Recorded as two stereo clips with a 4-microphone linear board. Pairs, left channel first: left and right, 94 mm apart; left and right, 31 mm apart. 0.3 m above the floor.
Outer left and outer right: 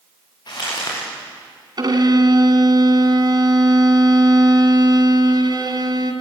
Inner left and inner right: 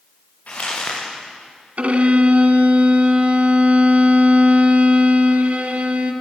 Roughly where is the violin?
Right.